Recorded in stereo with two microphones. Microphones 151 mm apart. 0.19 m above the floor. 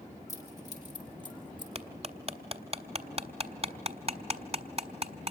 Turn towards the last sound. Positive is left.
turn(degrees=-45)  # may be behind; listen again after turning